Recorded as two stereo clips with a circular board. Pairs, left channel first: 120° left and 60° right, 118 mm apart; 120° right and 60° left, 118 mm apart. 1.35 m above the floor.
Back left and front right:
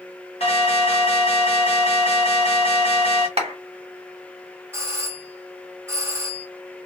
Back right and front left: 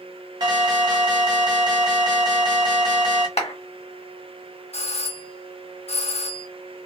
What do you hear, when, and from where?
0.4 s an alarm: 105° left, 1.5 m
3.4 s a clap: 95° right, 1.1 m
4.7 s a doorbell: 130° right, 0.8 m